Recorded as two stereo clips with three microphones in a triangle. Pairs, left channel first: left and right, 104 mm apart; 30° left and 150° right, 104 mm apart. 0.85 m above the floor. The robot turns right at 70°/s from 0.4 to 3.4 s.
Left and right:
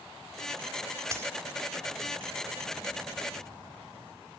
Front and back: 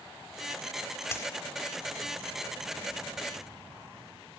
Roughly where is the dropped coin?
Ahead right.